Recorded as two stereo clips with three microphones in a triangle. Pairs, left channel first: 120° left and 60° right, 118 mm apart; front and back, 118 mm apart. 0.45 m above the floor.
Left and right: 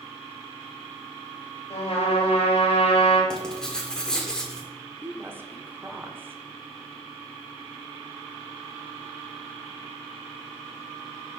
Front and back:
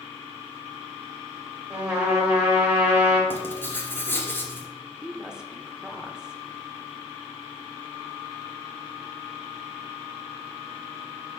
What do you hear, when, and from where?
1.7 s a trumpet: 105° left, 2 m
3.3 s writing: 45° left, 1.2 m
5.0 s a woman speaking: 105° right, 0.8 m